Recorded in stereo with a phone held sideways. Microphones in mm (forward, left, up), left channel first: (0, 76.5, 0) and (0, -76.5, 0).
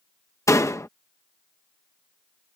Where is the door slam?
20° left (ahead or behind).